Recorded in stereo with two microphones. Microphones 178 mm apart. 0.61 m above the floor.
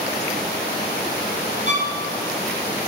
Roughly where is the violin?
Left.